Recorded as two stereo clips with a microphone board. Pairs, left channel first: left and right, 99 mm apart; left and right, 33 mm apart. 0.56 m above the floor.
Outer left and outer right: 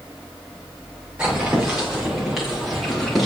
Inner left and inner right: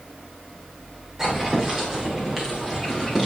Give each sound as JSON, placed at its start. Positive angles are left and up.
{"t": 1.2, "sound": "footsteps", "side_deg": -10, "distance_m": 6.5}